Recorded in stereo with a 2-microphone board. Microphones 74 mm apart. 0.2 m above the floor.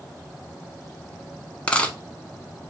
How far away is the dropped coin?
About 0.7 m.